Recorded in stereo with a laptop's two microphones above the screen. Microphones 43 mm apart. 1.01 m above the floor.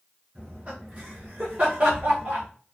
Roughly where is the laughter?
Right.